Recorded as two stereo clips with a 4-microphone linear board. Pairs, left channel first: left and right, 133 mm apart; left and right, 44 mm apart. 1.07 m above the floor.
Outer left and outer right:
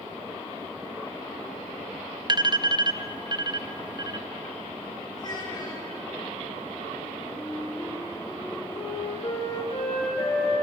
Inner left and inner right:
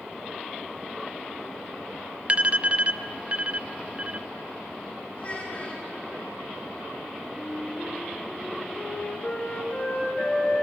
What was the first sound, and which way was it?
An alarm, 35° right (ahead or behind).